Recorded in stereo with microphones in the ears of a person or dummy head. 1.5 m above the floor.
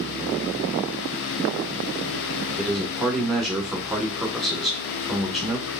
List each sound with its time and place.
2.6 s a man speaking: centre (ahead or behind), 1.4 m